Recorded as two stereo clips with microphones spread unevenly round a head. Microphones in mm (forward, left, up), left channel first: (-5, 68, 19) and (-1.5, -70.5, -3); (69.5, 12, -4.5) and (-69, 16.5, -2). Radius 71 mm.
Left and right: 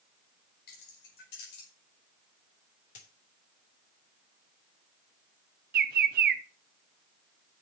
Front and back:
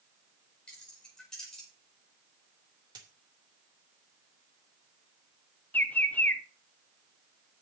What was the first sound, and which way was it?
Keys jangling, 80° left.